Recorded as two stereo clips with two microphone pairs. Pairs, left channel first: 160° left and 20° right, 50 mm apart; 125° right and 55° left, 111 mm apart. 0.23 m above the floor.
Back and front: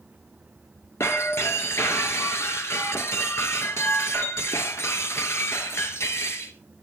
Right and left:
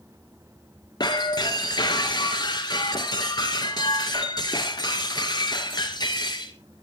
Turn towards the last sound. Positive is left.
turn(degrees=-170)